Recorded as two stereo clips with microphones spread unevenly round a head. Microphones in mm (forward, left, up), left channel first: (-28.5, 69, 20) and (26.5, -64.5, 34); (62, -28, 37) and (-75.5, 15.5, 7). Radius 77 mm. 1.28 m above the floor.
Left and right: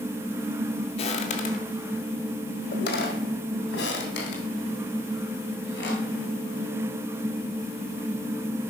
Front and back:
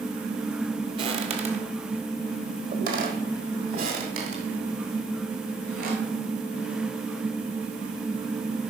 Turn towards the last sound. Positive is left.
turn(degrees=130)